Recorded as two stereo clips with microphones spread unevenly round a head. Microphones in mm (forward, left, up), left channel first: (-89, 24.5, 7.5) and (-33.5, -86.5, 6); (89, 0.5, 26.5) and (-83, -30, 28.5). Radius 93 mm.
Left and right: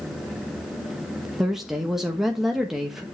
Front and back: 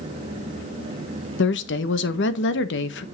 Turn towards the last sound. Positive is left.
turn(degrees=25)